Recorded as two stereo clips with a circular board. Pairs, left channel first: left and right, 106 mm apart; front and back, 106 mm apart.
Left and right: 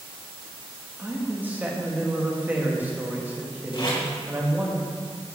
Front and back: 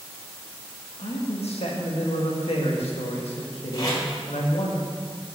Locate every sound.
1.0 s a man speaking: 15° right, 1.5 m
3.7 s tape being pulled: 50° left, 3 m